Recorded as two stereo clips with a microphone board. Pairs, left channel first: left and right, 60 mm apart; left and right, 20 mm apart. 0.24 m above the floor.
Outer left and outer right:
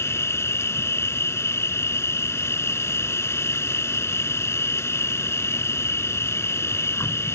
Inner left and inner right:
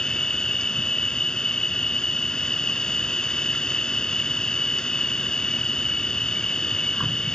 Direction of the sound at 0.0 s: 50° left (ahead or behind).